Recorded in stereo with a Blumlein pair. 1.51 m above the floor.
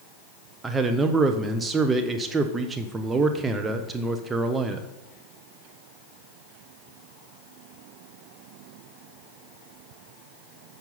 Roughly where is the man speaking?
Ahead.